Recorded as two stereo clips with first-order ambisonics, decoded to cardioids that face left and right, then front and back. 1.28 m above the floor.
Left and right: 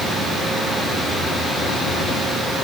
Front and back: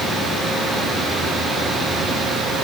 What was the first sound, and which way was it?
Only background noise.